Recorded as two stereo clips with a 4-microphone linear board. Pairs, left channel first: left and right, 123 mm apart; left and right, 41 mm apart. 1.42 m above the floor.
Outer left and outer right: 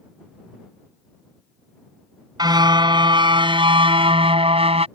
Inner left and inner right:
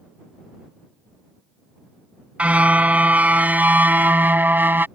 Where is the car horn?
35° right (ahead or behind); by 4.9 s 60° right (ahead or behind).